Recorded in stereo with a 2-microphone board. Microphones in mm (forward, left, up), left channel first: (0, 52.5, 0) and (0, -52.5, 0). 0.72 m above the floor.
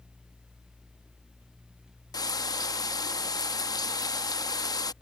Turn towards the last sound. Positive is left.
turn(degrees=35)  # may be behind; listen again after turning